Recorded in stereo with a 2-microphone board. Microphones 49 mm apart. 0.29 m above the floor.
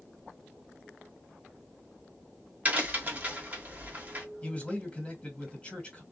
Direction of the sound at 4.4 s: 25° left (ahead or behind).